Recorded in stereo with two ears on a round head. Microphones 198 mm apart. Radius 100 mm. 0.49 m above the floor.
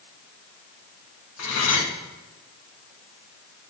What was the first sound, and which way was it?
Cutlery clinking, 70° left (ahead or behind).